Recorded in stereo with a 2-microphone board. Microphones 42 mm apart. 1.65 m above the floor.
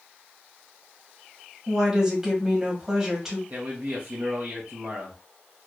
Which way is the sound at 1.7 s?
10° right (ahead or behind).